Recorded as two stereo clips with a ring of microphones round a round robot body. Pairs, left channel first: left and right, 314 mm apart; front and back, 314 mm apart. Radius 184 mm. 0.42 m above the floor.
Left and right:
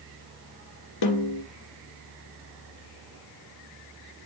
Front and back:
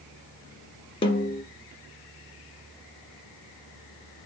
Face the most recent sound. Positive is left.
turn(degrees=75)